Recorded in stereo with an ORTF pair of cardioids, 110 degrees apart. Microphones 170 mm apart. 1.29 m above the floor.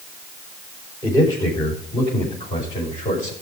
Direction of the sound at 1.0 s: 25° left.